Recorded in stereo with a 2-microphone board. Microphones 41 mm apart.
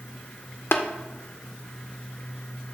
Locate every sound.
0.7 s tapping: 65° left (ahead or behind), 0.6 m